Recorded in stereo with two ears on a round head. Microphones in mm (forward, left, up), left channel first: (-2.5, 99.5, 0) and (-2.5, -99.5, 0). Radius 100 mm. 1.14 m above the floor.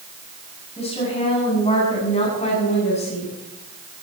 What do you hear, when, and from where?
0.8 s a woman speaking: 30° left (ahead or behind), 8 m